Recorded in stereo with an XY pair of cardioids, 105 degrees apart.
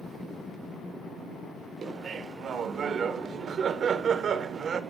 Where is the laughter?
50° right, 1.1 m.